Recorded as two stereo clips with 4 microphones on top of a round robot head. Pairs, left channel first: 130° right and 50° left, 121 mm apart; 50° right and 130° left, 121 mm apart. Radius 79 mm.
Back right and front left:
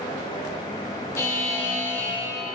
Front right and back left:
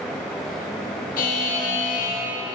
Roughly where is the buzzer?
Ahead right.